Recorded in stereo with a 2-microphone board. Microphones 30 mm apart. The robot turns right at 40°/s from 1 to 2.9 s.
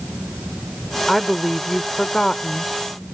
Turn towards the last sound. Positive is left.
turn(degrees=70)